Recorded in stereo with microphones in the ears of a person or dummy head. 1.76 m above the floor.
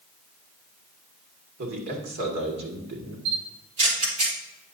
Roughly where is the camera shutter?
Right.